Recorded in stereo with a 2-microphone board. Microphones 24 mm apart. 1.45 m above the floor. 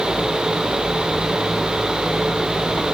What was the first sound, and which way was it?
Only background noise.